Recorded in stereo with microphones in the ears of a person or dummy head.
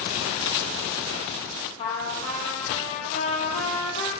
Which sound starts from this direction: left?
A trumpet, at 1.8 s.